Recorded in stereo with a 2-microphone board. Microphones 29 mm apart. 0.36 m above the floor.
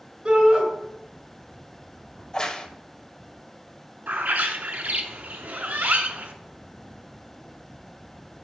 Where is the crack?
25° left (ahead or behind), 0.9 m.